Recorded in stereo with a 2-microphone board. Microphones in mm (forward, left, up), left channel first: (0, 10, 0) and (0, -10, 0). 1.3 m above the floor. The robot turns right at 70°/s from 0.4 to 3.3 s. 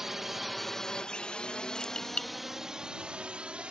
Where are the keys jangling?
45° left (ahead or behind); by 2.3 s 85° left.